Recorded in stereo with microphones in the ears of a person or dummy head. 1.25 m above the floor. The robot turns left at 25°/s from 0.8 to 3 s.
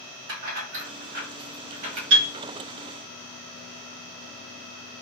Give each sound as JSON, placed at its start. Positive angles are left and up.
{"t": 0.3, "sound": "keys jangling", "side_deg": -75, "distance_m": 1.0}
{"t": 2.1, "sound": "a piano", "side_deg": -75, "distance_m": 1.0}